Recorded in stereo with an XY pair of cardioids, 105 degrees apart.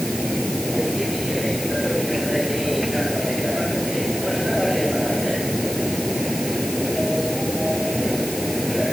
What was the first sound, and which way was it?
A machine running, 5° left.